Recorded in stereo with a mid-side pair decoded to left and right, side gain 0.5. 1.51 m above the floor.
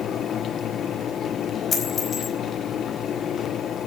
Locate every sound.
0.0 s a fan: 55° left, 0.9 m
1.7 s a dropped coin: 35° left, 4.5 m